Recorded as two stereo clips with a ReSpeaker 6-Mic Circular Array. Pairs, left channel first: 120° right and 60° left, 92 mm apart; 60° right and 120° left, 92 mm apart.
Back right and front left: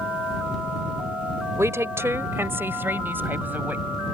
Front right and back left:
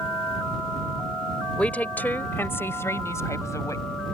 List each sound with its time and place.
1.6 s a woman speaking: 10° left; by 3.9 s 10° right